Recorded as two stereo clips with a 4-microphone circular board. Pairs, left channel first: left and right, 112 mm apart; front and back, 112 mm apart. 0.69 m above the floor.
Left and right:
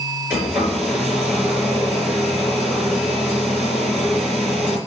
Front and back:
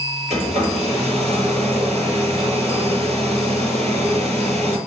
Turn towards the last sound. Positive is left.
turn(degrees=-170)